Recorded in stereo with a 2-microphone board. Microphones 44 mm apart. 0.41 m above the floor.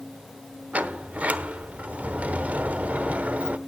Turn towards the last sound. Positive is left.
turn(degrees=-35)  # may be behind; listen again after turning